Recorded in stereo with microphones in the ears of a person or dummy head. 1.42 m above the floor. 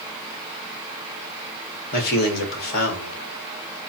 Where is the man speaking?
55° left (ahead or behind), 1.8 m.